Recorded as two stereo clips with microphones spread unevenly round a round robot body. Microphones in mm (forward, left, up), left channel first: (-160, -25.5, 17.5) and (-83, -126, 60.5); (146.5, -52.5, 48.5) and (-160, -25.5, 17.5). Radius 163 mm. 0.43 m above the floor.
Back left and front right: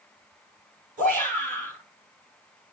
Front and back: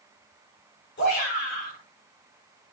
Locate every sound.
1.0 s a shout: 65° right, 8.5 m